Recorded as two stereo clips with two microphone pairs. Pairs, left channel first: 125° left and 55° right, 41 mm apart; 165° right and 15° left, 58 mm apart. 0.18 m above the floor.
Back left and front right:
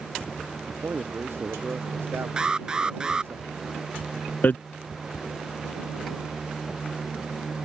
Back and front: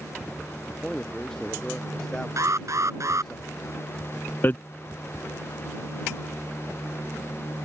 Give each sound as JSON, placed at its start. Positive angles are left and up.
{"t": 0.7, "sound": "a man speaking", "azimuth_deg": -80}
{"t": 2.4, "sound": "an alarm", "azimuth_deg": 10}
{"t": 4.4, "sound": "hammering", "azimuth_deg": 150}